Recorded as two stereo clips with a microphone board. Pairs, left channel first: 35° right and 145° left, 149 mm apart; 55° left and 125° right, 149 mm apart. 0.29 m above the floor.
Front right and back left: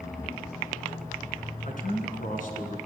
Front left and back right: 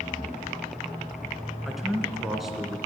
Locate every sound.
1.6 s a man speaking: 35° right, 2 m